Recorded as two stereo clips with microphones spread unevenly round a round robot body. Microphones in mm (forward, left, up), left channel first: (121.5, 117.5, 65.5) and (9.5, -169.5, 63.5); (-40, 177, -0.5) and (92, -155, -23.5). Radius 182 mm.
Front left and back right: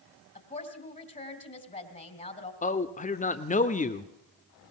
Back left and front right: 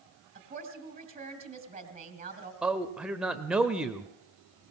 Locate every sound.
0.3 s a woman speaking: 5° left, 2.5 m
2.6 s a man speaking: 15° left, 1.0 m